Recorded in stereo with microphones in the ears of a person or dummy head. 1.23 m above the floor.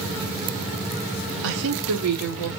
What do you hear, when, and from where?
1.4 s a woman speaking: 75° right (ahead or behind), 0.6 m; by 2.5 s 85° right, 1.9 m